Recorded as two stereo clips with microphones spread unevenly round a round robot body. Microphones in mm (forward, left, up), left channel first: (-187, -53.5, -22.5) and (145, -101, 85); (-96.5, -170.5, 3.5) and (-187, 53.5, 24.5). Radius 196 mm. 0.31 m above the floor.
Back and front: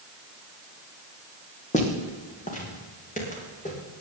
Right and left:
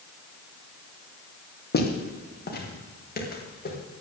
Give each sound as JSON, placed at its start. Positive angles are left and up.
{"t": 1.7, "sound": "footsteps", "azimuth_deg": -120, "distance_m": 4.0}